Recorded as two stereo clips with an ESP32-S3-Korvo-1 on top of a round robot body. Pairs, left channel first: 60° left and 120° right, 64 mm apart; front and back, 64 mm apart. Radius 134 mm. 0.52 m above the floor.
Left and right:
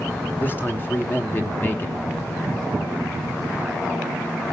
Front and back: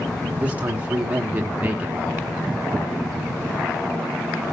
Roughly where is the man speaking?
Behind left.